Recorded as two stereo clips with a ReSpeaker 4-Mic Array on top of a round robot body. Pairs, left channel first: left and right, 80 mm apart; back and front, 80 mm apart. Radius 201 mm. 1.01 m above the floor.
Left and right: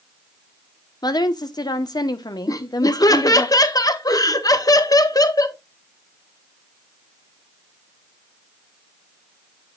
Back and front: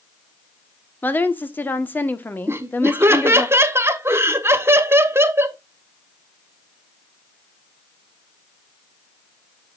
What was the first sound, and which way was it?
A woman speaking, 115° left.